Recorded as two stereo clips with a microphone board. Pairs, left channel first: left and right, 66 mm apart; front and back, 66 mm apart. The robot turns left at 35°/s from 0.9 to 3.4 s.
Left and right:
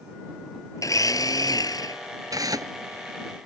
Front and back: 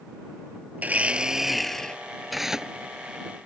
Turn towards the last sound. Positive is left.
turn(degrees=-130)